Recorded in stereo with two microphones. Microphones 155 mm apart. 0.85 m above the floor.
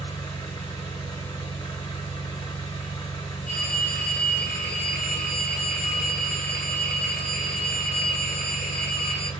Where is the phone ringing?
60° left (ahead or behind), 0.9 m.